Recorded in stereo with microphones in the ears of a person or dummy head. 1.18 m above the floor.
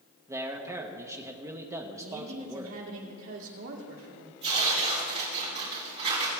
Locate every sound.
0.3 s a man speaking: 15° right (ahead or behind), 1.1 m
2.0 s a woman speaking: 65° right (ahead or behind), 2.5 m
4.4 s tearing paper: 30° right (ahead or behind), 4 m